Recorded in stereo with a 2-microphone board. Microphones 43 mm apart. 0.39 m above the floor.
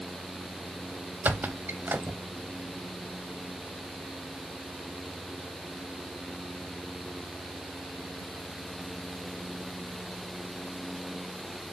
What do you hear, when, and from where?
1.2 s a squeak: 45° right (ahead or behind), 0.6 m